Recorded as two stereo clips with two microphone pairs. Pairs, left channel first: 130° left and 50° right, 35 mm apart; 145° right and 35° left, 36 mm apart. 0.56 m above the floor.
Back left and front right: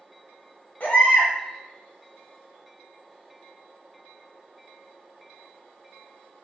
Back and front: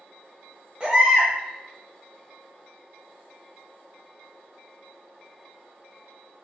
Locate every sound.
0.8 s a baby crying: 95° left, 0.8 m